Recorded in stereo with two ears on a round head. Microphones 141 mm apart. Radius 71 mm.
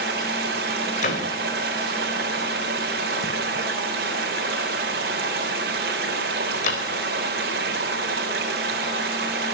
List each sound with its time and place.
0.0 s running water: 60° right (ahead or behind), 3 m
1.0 s a door slam: 50° left (ahead or behind), 4 m